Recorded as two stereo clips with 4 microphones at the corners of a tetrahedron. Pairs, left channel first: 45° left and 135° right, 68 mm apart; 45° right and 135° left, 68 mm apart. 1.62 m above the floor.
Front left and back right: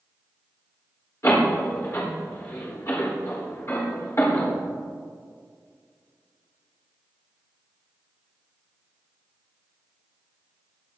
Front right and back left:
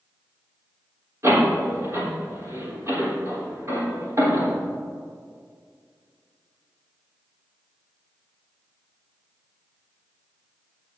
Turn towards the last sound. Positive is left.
turn(degrees=90)